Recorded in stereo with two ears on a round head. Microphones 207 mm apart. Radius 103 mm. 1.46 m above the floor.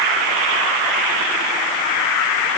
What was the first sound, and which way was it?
Only background noise.